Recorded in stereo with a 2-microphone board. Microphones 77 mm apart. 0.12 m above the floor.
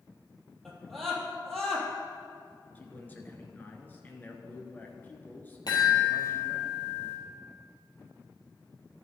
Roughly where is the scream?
Centre.